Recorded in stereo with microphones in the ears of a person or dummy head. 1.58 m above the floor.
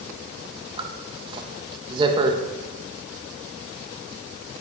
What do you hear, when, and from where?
0.8 s a zipper: 30° right (ahead or behind), 1.2 m